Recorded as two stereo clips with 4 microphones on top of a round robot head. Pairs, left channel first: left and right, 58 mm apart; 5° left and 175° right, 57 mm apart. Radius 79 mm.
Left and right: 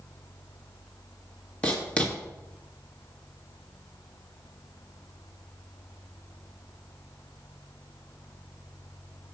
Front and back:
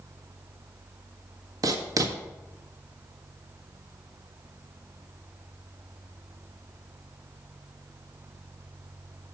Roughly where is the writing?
Behind.